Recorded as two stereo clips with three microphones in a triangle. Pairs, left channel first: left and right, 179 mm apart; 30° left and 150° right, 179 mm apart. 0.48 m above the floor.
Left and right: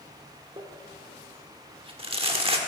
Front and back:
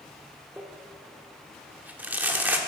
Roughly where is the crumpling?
Right.